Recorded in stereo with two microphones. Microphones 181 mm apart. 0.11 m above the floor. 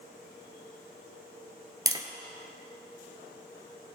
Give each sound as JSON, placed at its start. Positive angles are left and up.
{"t": 1.9, "sound": "tapping", "side_deg": -20, "distance_m": 0.8}